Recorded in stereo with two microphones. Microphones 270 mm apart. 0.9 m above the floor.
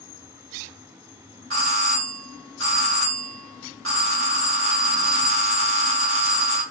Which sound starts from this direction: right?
A doorbell, at 1.5 s.